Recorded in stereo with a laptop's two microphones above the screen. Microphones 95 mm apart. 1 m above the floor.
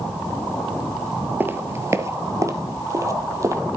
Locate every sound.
1.4 s footsteps: 20° right (ahead or behind), 1.0 m; by 3.6 s 30° right (ahead or behind), 1.8 m